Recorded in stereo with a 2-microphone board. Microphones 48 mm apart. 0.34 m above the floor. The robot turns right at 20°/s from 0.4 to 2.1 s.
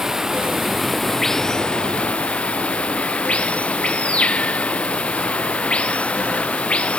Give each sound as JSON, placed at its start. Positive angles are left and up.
{"t": 0.0, "sound": "running water", "azimuth_deg": -10}